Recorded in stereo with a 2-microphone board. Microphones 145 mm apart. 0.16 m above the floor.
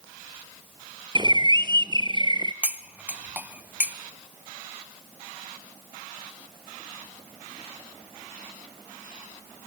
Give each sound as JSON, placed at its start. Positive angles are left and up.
{"t": 1.1, "sound": "a bird", "side_deg": -30, "distance_m": 0.8}
{"t": 2.6, "sound": "cutlery clinking", "side_deg": -10, "distance_m": 0.7}